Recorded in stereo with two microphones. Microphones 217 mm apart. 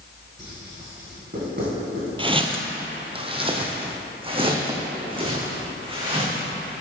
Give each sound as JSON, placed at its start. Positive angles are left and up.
{"t": 0.4, "sound": "writing", "side_deg": -55, "distance_m": 3.0}
{"t": 2.2, "sound": "footsteps", "side_deg": -25, "distance_m": 0.7}